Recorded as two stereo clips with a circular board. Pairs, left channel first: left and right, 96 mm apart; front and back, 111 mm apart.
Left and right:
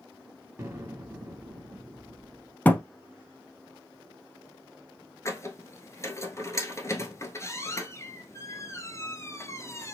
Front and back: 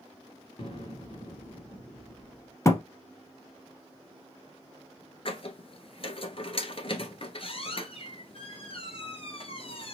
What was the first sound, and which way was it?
An explosion, 30° right.